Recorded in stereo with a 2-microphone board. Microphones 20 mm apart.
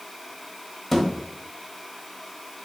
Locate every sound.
0.9 s a thud: 10° left (ahead or behind), 1.2 m